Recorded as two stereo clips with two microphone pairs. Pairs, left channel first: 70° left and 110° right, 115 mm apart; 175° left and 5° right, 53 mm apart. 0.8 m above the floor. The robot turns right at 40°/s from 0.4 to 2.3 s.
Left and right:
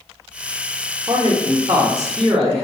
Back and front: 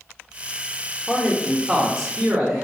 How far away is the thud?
I don't hear a thud.